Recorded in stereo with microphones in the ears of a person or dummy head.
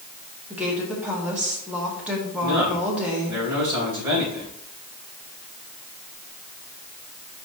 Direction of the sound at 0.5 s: 5° right (ahead or behind).